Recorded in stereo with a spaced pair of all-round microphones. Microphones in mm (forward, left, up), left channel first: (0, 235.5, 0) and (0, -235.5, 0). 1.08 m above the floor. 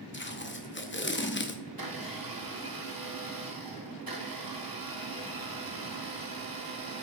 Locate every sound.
0.1 s tape being pulled: 25° left (ahead or behind), 0.7 m
1.7 s a blender: 45° right (ahead or behind), 0.9 m